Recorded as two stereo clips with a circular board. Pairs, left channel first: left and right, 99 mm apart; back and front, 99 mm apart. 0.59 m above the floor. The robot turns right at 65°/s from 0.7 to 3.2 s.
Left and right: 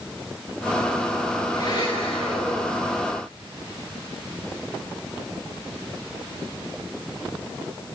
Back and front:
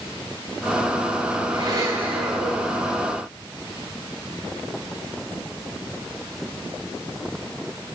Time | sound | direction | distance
1.5 | a blender | 35° left | 9.5 m